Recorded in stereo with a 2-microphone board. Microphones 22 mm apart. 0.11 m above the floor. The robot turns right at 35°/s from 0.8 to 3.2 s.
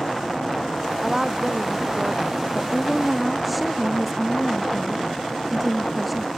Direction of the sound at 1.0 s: 160° right.